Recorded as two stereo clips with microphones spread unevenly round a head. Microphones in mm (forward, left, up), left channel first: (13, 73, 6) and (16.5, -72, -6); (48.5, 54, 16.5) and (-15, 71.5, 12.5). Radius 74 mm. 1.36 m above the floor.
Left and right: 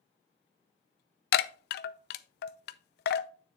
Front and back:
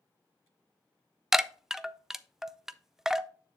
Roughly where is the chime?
Left.